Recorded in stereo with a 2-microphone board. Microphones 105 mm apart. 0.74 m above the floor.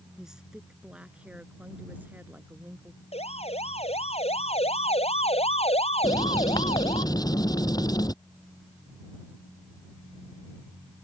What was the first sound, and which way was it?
A woman speaking, 5° right (ahead or behind).